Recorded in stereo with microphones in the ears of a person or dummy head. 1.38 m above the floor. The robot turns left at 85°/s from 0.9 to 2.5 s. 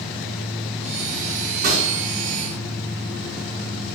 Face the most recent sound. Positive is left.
turn(degrees=150)